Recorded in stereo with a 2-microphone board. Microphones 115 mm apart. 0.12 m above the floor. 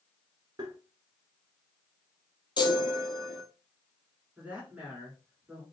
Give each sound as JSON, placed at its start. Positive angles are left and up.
{"t": 0.6, "sound": "tapping", "side_deg": -35, "distance_m": 1.2}
{"t": 2.6, "sound": "a chime", "side_deg": 40, "distance_m": 0.9}
{"t": 4.4, "sound": "a woman speaking", "side_deg": -15, "distance_m": 1.6}